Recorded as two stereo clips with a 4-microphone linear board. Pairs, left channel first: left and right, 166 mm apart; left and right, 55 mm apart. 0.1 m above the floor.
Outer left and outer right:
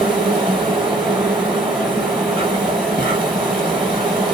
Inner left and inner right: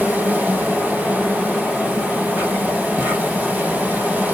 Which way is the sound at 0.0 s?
30° right (ahead or behind).